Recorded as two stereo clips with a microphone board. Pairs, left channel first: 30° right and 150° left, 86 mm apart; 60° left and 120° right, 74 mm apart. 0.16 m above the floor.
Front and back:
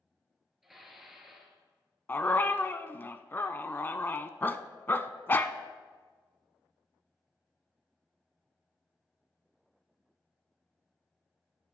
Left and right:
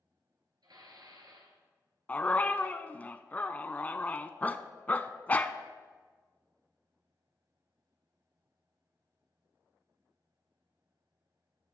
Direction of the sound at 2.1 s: 15° left.